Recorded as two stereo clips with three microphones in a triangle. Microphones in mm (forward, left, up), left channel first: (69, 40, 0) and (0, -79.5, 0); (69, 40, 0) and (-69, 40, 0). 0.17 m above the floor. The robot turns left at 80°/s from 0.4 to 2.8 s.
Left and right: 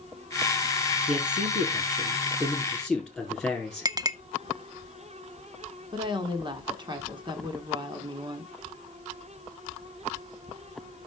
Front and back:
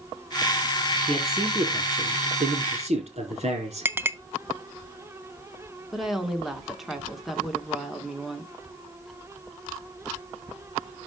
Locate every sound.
1.1 s a man speaking: 75° right, 4.5 m; by 3.9 s 150° left, 4.5 m
3.9 s a clink: 130° right, 0.6 m
5.9 s a woman speaking: 95° right, 1.5 m